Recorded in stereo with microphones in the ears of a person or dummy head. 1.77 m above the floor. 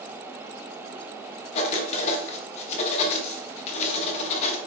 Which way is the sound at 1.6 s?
40° left (ahead or behind).